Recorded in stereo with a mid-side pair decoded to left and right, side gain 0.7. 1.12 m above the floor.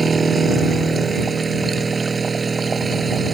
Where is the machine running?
20° right.